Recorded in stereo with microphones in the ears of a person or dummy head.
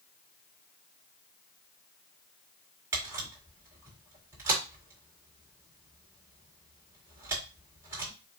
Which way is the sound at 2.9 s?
15° right (ahead or behind).